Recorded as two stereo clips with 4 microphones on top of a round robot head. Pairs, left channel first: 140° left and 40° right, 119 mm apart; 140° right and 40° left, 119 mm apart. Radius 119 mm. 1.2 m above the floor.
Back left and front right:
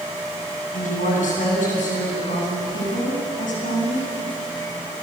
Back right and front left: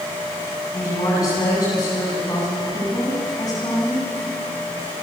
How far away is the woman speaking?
About 9.5 m.